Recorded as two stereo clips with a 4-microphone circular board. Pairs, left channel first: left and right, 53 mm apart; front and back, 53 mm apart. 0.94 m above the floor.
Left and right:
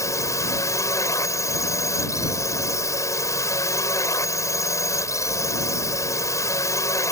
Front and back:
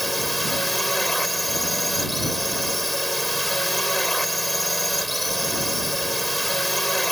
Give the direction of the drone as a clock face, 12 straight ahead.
9 o'clock.